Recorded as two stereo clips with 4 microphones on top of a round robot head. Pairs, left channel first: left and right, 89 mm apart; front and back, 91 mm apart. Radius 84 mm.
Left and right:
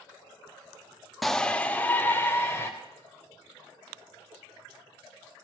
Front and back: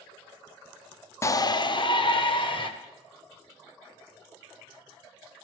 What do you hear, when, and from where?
1.2 s a shout: straight ahead, 0.7 m; by 2.7 s 20° left, 2.5 m